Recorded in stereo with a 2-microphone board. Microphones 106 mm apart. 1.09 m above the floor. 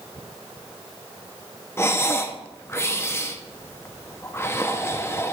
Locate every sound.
1.8 s breathing: 25° left (ahead or behind), 0.7 m